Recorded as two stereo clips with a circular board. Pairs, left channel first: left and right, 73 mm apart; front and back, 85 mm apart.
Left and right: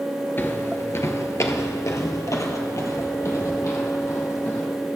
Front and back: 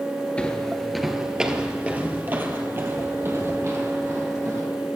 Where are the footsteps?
65° left, 1.0 m; by 4.7 s 130° left, 2.5 m.